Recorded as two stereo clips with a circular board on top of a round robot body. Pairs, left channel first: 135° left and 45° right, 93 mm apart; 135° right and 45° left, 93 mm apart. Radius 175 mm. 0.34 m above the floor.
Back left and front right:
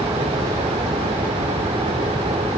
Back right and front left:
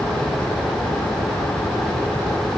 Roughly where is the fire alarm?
I don't hear a fire alarm.